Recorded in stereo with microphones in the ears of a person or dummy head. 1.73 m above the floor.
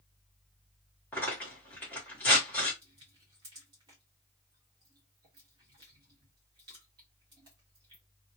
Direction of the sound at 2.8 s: 20° right (ahead or behind).